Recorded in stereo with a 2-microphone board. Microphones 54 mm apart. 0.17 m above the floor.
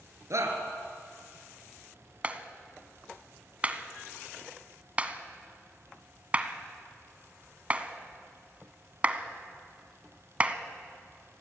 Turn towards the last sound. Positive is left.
turn(degrees=-25)  # may be behind; listen again after turning